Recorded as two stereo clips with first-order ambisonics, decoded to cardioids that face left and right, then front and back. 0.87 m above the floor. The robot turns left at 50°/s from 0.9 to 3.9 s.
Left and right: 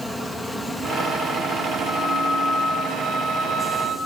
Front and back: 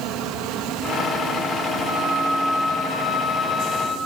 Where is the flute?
5° left, 1.7 m; by 4.0 s 95° right, 1.7 m.